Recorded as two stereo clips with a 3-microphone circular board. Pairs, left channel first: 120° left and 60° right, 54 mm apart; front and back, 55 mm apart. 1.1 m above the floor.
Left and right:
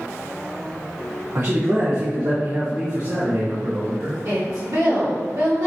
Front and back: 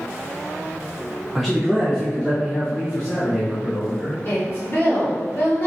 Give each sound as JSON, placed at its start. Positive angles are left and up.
{"t": 1.4, "sound": "a man speaking", "azimuth_deg": -100, "distance_m": 0.7}
{"t": 4.2, "sound": "a woman speaking", "azimuth_deg": -50, "distance_m": 1.6}